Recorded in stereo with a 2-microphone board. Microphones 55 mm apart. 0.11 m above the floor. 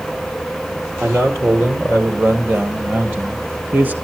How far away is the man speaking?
About 3.5 m.